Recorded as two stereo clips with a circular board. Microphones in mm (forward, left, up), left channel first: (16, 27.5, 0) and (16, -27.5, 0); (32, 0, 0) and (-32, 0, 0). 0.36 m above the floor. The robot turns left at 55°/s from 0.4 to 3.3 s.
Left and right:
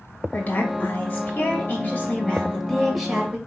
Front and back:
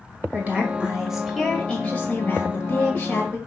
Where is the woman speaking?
135° left, 1.6 m; by 3.4 s 25° right, 1.6 m.